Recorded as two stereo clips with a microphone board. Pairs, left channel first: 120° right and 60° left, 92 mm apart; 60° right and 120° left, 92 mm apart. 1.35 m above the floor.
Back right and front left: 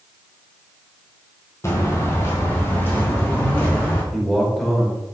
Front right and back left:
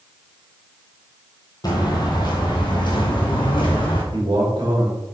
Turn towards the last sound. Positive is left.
turn(degrees=150)